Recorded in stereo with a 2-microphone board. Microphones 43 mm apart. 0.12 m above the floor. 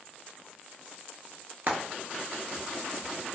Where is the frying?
50° right (ahead or behind), 0.6 m.